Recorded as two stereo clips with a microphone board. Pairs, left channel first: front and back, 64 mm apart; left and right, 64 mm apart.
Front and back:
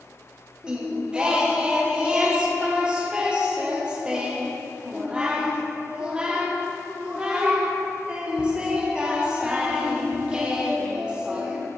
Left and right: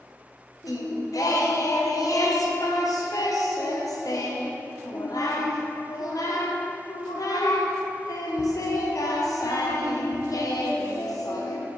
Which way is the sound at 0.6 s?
110° left.